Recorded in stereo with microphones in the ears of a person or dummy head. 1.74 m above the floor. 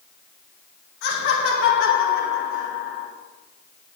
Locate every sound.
1.0 s laughter: 65° left (ahead or behind), 1.8 m